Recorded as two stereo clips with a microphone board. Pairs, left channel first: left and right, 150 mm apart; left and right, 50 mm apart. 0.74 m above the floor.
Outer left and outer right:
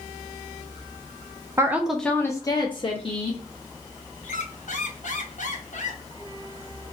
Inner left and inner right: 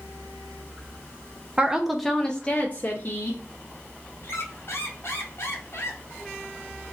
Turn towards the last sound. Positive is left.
turn(degrees=60)  # may be behind; listen again after turning